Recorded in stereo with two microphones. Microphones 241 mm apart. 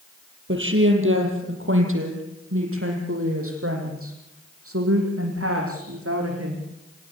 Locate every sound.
0.5 s a woman speaking: 55° right (ahead or behind), 5 m; by 6.6 s 70° right (ahead or behind), 10.5 m